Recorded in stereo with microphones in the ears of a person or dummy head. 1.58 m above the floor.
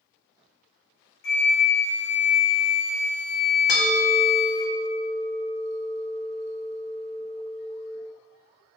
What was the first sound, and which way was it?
A flute, 60° left (ahead or behind).